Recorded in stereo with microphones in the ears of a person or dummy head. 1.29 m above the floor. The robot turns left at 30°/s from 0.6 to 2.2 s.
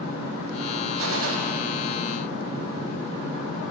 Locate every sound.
1.0 s a gunshot: 75° right (ahead or behind), 1.3 m; by 1.4 s 85° right, 1.3 m